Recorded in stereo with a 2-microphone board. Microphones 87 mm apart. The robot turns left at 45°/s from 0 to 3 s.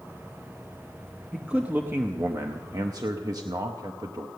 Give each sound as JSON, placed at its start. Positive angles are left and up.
{"t": 1.3, "sound": "a man speaking", "azimuth_deg": -10, "distance_m": 0.7}